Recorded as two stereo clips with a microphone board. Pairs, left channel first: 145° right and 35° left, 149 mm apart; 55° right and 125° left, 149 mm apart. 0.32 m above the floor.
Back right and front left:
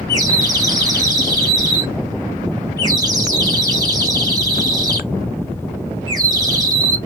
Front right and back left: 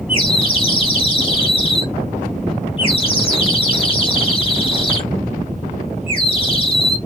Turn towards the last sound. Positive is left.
turn(degrees=-20)